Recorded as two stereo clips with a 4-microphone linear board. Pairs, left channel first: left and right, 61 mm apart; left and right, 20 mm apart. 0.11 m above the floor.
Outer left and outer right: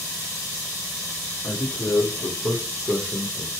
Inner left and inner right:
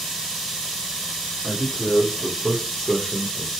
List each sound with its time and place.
1.4 s a man speaking: 50° left (ahead or behind), 4 m; by 3.5 s 55° left (ahead or behind), 2.5 m